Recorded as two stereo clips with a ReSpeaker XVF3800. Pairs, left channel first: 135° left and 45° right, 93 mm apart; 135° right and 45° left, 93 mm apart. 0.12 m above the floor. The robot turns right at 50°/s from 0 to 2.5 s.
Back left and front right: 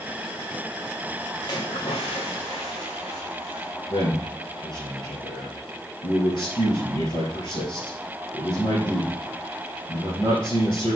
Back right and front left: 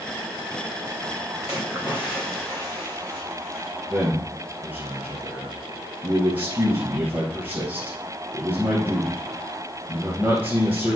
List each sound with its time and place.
1.4 s a splash: 100° left, 2 m; by 3.7 s 150° left, 2 m
3.9 s a man speaking: 115° left, 2 m